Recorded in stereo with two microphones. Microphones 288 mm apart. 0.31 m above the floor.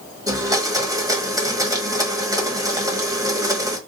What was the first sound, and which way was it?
A blender, 10° right (ahead or behind).